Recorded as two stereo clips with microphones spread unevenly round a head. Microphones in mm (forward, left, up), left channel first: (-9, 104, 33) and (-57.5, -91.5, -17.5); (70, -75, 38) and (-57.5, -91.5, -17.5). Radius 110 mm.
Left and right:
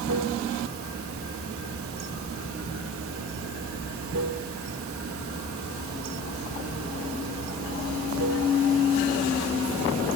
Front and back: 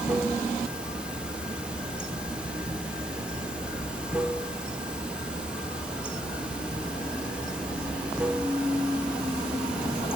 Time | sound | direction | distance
0.0 | running water | 75° right | 1.6 m